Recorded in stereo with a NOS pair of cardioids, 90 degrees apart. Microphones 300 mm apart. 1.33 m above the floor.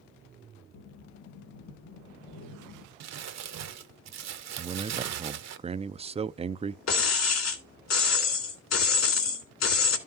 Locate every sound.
0.7 s breathing: 60° left, 2.5 m
3.0 s crumpling: 60° right, 1.1 m
4.6 s a man speaking: 20° right, 0.5 m
6.9 s breaking glass: 60° left, 3 m